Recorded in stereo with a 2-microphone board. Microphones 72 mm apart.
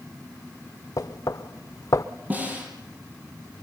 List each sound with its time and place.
1.0 s knocking: 55° left (ahead or behind), 0.8 m
2.3 s a snare drum: 20° right (ahead or behind), 6 m